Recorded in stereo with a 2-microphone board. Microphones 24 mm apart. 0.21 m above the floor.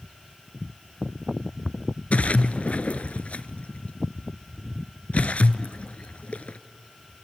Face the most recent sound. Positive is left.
turn(degrees=85)